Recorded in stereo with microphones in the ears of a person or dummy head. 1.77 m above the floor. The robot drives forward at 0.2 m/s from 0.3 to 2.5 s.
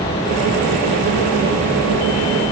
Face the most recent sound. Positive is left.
No sound to turn to.